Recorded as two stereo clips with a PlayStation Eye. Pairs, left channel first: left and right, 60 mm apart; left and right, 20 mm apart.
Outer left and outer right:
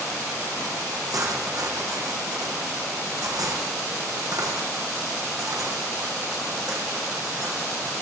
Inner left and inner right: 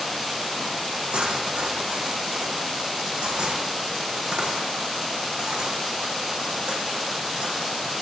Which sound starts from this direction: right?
Cutlery clinking, at 1.1 s.